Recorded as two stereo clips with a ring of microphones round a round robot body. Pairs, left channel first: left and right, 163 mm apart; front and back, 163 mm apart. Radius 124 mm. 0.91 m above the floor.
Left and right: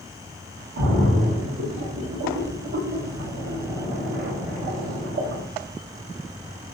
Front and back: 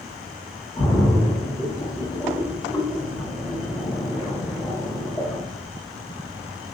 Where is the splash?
75° right, 0.8 m.